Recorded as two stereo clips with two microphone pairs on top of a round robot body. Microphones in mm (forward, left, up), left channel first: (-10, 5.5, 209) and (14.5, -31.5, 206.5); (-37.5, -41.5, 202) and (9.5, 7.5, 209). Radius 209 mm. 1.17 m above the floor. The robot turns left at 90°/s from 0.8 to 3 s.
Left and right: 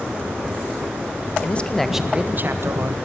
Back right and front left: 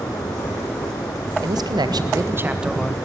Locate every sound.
1.4 s a man speaking: 75° left, 1.7 m; by 3.0 s 65° right, 1.7 m